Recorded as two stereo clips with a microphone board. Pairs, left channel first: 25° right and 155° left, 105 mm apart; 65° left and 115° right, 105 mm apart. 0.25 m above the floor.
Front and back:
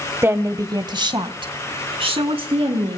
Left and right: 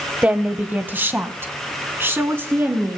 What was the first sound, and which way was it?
A woman speaking, 170° right.